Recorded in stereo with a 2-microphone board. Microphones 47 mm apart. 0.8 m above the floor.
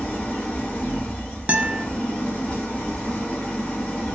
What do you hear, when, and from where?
0.0 s an engine running: 30° left (ahead or behind), 1.6 m
1.5 s a guitar: 30° right (ahead or behind), 0.7 m